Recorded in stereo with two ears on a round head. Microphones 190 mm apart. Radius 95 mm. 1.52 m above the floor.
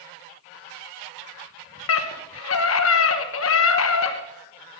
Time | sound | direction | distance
1.9 | a scream | 75° left (ahead or behind) | 1.2 m